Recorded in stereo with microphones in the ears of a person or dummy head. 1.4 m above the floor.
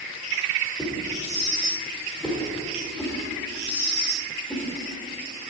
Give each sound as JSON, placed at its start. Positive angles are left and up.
{"t": 0.8, "sound": "a whoosh", "side_deg": 5, "distance_m": 1.7}